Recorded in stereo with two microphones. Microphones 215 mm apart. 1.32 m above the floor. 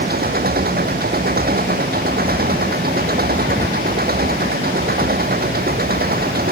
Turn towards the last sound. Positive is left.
turn(degrees=-45)  # may be behind; listen again after turning